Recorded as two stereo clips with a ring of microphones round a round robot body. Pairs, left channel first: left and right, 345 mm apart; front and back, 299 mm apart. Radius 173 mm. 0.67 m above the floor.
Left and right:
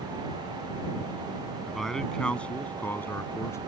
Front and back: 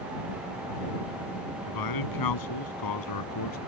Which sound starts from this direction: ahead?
A man speaking, at 1.7 s.